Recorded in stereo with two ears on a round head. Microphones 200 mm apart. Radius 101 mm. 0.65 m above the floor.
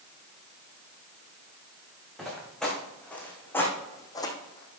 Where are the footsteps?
Centre (ahead or behind), 3.5 m; by 4.8 s 25° left (ahead or behind), 1.6 m.